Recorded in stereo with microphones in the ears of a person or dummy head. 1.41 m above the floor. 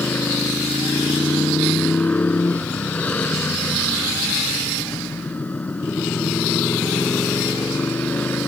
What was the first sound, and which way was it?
A motorcycle, 5° left (ahead or behind).